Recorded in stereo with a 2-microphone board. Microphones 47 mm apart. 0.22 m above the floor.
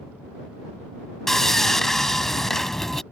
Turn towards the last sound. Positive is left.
turn(degrees=10)  # may be behind; listen again after turning